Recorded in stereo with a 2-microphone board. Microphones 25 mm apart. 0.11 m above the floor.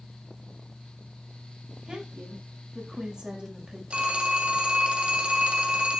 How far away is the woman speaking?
About 9 m.